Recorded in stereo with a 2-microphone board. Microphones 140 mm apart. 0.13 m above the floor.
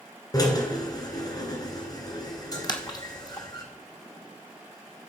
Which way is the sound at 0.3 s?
25° left (ahead or behind).